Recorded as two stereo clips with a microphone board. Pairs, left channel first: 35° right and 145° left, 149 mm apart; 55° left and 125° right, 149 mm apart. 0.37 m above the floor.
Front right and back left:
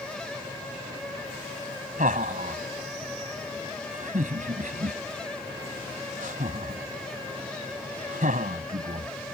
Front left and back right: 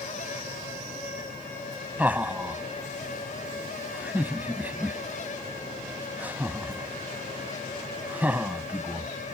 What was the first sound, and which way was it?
Laughter, 160° left.